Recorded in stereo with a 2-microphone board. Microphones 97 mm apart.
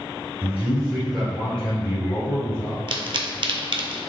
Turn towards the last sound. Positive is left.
turn(degrees=-60)  # may be behind; listen again after turning